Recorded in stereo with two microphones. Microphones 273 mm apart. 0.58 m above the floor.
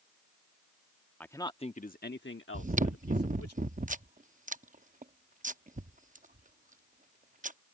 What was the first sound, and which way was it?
A man speaking, 5° left (ahead or behind).